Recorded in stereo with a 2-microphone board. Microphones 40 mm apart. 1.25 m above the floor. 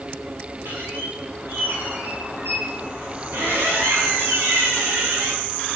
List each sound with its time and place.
0.7 s a squeak: 85° right, 8 m